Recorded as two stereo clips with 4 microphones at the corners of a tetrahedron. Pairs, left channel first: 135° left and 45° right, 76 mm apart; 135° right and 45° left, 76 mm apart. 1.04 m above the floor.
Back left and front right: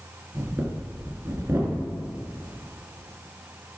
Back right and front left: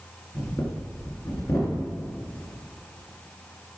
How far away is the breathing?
About 2.5 m.